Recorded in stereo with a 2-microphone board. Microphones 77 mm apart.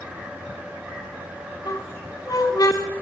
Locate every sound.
1.6 s a squeak: 50° left (ahead or behind), 1.7 m